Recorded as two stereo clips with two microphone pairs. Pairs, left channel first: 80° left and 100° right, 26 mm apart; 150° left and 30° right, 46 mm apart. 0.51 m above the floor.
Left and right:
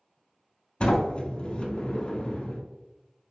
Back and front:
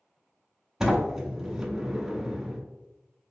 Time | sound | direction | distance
0.8 | a sliding door | 40° left | 0.7 m